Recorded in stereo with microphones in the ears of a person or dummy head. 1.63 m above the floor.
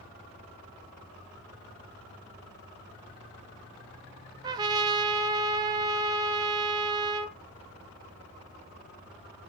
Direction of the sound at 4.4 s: 25° right (ahead or behind).